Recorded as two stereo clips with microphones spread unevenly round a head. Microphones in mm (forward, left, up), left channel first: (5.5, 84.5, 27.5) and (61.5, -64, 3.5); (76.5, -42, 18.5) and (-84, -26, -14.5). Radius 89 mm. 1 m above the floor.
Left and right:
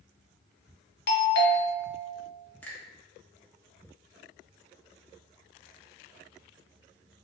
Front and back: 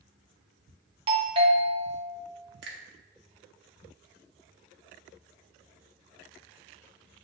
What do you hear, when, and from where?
1.1 s a doorbell: 130° left, 1.2 m
2.6 s a finger snap: 170° right, 1.2 m